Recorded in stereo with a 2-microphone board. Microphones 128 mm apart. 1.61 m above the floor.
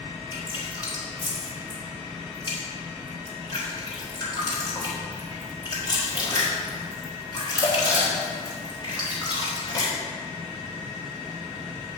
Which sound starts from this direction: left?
Dripping, at 0.3 s.